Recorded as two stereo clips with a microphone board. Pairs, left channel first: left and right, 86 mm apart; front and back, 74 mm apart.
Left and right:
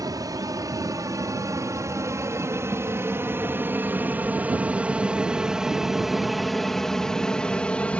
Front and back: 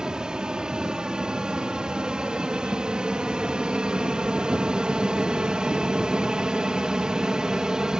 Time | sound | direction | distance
0.0 | an aircraft | 105° right | ?